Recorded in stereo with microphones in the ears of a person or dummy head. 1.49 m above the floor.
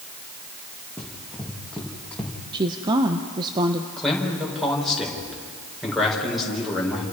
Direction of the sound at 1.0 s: Centre (ahead or behind).